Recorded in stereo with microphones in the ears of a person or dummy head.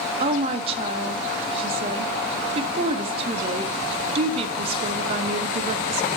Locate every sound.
0.2 s a woman speaking: 30° right (ahead or behind), 0.6 m